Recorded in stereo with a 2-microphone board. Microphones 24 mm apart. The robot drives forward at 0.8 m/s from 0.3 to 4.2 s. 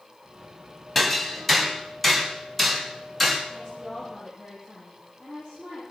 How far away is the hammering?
About 2.5 m.